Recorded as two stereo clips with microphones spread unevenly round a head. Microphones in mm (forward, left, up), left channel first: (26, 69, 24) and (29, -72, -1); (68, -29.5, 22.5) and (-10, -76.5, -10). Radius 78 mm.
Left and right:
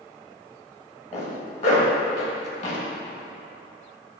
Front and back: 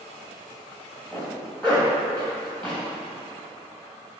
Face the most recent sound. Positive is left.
turn(degrees=90)